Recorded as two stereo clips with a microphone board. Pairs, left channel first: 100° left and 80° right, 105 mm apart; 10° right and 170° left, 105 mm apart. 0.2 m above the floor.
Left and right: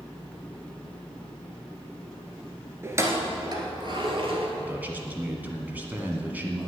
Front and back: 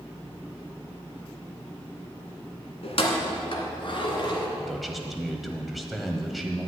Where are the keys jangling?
15° right, 1.6 m; by 4.5 s 50° right, 2 m.